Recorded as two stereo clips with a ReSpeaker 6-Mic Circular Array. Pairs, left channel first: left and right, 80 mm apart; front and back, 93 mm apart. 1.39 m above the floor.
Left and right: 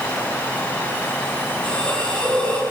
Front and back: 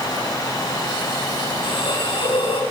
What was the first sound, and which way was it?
A hiss, 15° left.